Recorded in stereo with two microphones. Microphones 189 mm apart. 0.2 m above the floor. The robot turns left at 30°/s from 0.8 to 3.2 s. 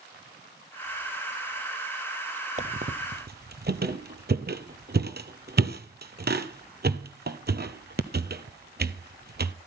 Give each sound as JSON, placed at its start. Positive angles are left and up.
{"t": 2.6, "sound": "a squeak", "side_deg": -40, "distance_m": 1.0}